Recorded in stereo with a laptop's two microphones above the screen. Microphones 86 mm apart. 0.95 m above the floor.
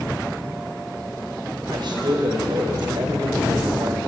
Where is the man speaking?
65° right (ahead or behind), 5 m.